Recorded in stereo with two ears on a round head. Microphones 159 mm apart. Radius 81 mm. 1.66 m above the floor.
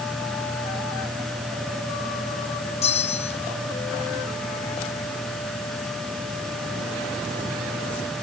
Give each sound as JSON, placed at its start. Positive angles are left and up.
{"t": 2.8, "sound": "a bell", "side_deg": 35}